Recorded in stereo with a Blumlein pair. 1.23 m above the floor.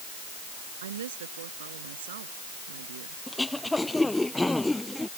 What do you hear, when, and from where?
0.8 s a woman speaking: 65° right; by 3.2 s 55° right
3.3 s throat clearing: 5° left